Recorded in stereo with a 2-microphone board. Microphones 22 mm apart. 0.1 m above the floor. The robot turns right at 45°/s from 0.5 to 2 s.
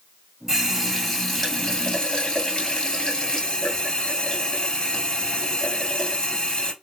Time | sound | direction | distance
0.5 | a running tap | 25° right | 1.3 m